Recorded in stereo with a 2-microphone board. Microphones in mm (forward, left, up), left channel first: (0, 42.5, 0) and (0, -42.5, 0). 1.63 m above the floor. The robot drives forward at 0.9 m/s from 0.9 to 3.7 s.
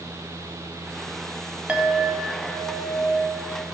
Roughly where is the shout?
I don't hear a shout.